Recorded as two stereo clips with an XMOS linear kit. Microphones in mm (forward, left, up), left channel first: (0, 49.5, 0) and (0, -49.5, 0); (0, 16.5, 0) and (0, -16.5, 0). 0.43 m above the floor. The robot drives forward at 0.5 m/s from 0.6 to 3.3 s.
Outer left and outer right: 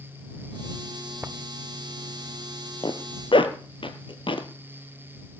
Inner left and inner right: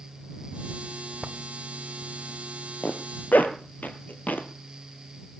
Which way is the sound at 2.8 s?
50° left (ahead or behind).